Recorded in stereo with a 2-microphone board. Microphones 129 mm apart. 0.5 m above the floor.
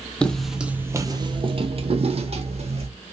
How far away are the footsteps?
About 0.6 m.